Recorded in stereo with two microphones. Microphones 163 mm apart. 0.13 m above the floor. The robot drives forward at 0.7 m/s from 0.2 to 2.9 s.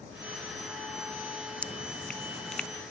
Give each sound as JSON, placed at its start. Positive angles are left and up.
{"t": 1.6, "sound": "dripping", "side_deg": 5}